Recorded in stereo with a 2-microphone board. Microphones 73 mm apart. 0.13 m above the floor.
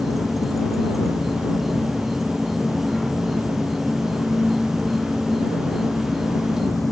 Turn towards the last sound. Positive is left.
turn(degrees=0)  # may be behind; listen again after turning